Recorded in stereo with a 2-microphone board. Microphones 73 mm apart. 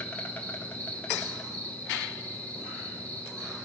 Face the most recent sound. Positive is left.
turn(degrees=20)  # may be behind; listen again after turning